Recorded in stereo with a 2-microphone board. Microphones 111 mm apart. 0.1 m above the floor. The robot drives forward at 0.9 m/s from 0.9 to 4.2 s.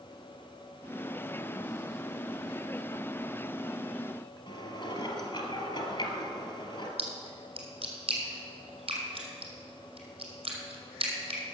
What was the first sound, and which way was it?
Dishes clattering, 50° left (ahead or behind).